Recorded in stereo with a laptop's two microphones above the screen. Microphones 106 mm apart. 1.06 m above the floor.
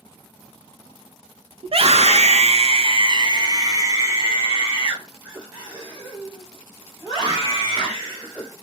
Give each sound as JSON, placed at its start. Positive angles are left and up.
{"t": 1.6, "sound": "a scream", "side_deg": -60, "distance_m": 0.7}